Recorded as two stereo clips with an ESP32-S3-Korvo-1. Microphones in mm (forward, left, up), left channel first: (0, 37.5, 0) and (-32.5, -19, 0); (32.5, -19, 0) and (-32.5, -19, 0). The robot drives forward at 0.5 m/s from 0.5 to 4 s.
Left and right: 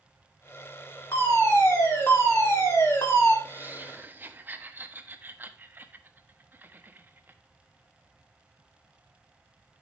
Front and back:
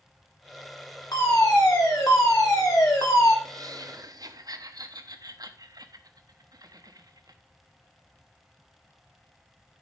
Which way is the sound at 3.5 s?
Straight behind.